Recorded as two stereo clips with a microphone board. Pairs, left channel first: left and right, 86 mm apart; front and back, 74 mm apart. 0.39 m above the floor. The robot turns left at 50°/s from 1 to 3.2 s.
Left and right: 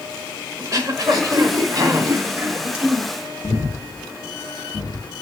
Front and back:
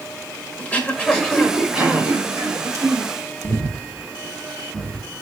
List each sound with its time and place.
0.6 s throat clearing: 65° right, 1.3 m; by 3.1 s 170° right, 1.3 m
3.4 s breathing: 90° left, 1.6 m